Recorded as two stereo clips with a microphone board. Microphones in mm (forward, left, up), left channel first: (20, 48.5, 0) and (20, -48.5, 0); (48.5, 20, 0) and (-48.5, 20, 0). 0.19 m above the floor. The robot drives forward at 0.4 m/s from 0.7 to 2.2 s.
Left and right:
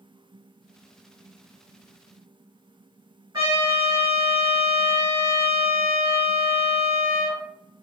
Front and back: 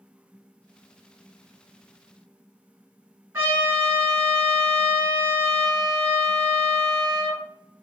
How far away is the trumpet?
About 2.0 m.